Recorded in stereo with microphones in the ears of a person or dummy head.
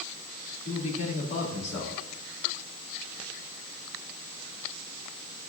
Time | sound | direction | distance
0.7 | a man speaking | 45° left (ahead or behind) | 3 m